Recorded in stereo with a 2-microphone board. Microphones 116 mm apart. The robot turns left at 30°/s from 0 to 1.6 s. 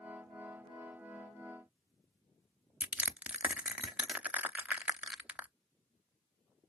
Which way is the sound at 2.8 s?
10° right (ahead or behind).